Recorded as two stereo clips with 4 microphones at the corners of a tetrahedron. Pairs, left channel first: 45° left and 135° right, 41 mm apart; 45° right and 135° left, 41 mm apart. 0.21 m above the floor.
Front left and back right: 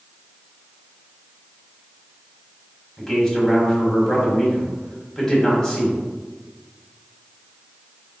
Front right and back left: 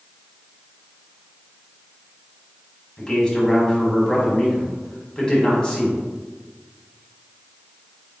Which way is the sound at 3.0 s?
15° right.